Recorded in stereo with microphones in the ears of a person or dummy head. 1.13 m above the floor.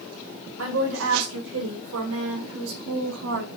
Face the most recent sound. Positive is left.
turn(degrees=-70)  # may be behind; listen again after turning